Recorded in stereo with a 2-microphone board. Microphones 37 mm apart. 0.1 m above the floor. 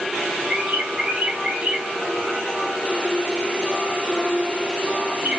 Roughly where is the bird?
Right.